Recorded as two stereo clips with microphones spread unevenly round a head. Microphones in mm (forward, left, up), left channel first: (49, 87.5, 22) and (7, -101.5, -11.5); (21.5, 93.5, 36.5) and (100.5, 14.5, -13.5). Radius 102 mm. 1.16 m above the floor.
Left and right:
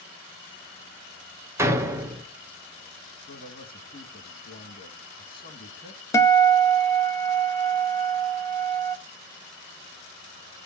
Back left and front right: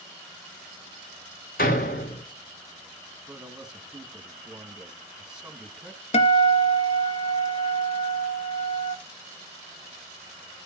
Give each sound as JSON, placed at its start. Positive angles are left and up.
{"t": 1.6, "sound": "a door slam", "azimuth_deg": 180, "distance_m": 0.7}
{"t": 3.3, "sound": "a man speaking", "azimuth_deg": 30, "distance_m": 1.8}
{"t": 6.1, "sound": "a guitar", "azimuth_deg": 150, "distance_m": 0.7}